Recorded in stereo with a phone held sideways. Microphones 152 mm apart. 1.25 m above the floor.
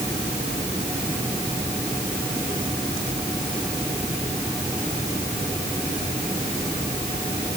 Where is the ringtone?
I don't hear a ringtone.